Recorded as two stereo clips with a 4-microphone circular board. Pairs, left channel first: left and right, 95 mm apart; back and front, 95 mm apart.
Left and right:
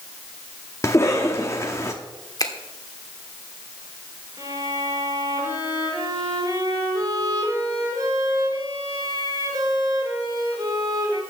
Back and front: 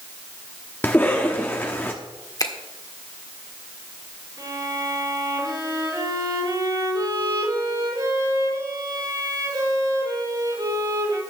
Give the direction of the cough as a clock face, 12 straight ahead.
8 o'clock.